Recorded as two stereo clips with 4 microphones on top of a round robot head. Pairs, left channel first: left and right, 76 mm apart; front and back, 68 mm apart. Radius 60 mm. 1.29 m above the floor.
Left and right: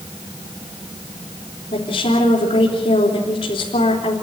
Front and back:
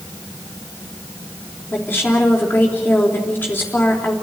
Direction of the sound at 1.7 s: 70° left.